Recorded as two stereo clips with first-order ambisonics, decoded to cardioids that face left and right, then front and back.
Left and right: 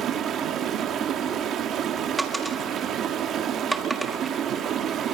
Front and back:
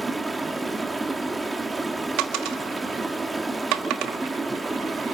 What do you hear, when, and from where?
0.0 s running water: 105° right, 1.2 m
2.2 s a dropped coin: 170° right, 1.5 m